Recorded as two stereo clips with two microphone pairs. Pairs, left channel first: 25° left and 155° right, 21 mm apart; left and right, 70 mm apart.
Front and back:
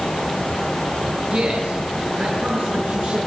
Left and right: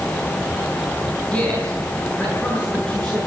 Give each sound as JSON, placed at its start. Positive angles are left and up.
{"t": 1.3, "sound": "a man speaking", "azimuth_deg": 165, "distance_m": 5.0}